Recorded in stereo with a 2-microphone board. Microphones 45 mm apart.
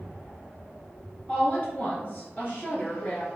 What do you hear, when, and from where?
1.3 s a woman speaking: 25° left (ahead or behind), 1.6 m; by 3.3 s 40° left (ahead or behind), 2.0 m